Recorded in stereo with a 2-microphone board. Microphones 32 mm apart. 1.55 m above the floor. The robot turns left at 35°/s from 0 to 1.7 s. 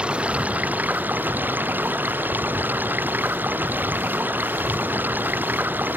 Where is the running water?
30° right; by 6.0 s 90° right.